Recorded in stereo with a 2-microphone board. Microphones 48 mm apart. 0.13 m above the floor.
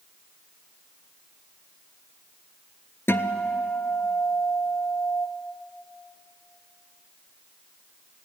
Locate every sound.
3.1 s a guitar: 55° left (ahead or behind), 0.9 m